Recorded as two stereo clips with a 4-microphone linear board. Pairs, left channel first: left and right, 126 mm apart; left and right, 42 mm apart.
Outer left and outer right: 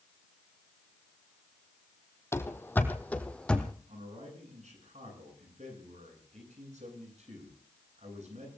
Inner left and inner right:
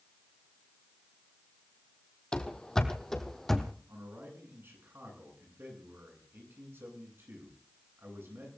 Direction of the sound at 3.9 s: 65° right (ahead or behind).